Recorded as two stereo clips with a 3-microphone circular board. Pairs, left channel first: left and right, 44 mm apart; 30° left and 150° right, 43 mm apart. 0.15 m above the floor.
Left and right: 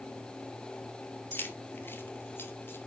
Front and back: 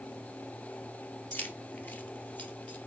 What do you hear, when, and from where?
1.3 s keys jangling: 65° left, 2.5 m; by 2.8 s 75° left, 3 m